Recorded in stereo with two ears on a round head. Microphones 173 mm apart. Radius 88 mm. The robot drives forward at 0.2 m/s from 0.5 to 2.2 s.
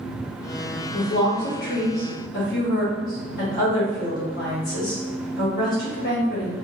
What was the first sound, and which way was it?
A woman speaking, 55° left (ahead or behind).